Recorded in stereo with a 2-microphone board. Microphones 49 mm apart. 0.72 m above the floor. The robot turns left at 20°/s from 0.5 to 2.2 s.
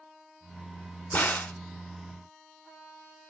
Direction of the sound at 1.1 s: 40° left (ahead or behind).